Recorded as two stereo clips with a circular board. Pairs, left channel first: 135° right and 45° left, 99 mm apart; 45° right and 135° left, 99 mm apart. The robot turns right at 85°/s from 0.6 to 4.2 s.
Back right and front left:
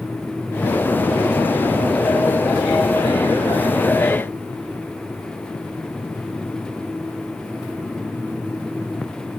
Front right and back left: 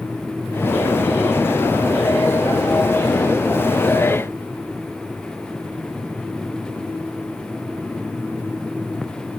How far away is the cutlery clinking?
I don't hear cutlery clinking.